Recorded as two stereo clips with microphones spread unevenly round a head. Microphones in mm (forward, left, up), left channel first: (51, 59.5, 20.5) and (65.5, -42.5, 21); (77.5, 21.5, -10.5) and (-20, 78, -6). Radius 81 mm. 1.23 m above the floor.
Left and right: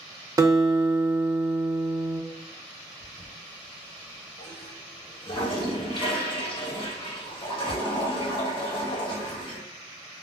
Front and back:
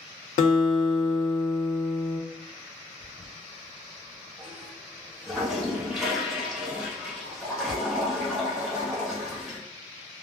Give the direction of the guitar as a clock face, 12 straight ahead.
1 o'clock.